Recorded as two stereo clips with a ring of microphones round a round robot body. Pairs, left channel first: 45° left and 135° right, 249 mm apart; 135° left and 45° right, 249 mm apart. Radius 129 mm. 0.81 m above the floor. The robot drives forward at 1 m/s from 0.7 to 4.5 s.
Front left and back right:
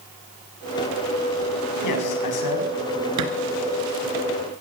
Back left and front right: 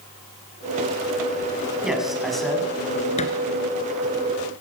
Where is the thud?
160° right, 3 m.